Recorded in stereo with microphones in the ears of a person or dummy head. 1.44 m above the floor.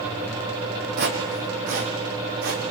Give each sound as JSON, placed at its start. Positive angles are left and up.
{"t": 1.0, "sound": "footsteps", "side_deg": -50, "distance_m": 3.5}